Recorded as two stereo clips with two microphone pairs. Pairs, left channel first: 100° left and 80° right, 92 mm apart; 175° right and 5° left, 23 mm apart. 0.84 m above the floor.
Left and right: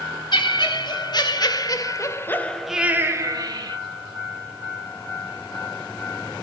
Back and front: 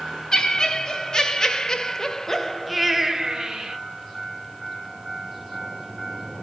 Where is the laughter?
130° left, 3 m; by 3.8 s 50° right, 1.5 m.